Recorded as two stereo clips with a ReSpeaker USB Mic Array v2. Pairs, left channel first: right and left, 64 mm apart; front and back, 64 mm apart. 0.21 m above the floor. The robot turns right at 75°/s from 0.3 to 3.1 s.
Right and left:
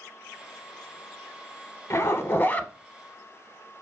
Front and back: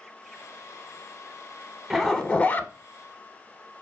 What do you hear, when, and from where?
1.9 s a zipper: 90° right, 0.5 m; by 2.7 s 30° right, 0.5 m